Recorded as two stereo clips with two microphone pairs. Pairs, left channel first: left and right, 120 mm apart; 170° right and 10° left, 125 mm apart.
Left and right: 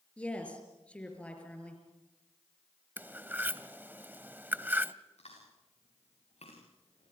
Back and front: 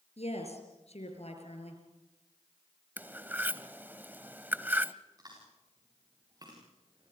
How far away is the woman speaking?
About 5 m.